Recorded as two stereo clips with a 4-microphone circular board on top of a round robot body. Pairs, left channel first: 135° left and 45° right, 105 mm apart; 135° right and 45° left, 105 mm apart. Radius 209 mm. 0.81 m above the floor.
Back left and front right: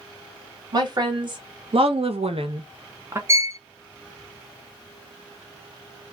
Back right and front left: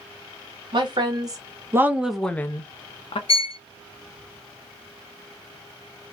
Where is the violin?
110° right, 0.5 m.